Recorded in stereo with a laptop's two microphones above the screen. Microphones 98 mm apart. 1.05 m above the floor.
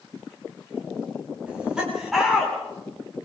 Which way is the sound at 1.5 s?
10° right (ahead or behind).